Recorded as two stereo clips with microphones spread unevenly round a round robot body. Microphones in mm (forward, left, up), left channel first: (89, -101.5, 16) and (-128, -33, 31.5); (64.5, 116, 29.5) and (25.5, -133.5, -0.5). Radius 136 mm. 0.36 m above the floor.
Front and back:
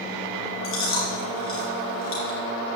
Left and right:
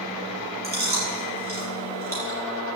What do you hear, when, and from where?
0.6 s chewing: 45° right, 5.5 m